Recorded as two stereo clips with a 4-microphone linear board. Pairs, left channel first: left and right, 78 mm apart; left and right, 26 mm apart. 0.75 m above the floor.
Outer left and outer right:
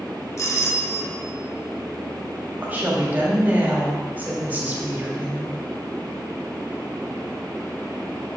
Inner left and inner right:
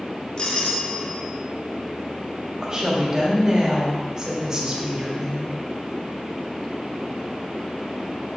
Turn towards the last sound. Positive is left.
turn(degrees=-20)  # may be behind; listen again after turning